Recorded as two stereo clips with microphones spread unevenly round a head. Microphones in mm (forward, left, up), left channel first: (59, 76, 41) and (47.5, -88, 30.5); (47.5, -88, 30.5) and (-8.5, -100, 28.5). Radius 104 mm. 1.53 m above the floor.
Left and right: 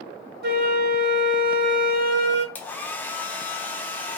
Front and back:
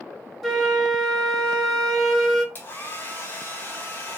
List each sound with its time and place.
0.4 s a flute: 75° right, 1.0 m
2.5 s a hair dryer: 20° left, 0.5 m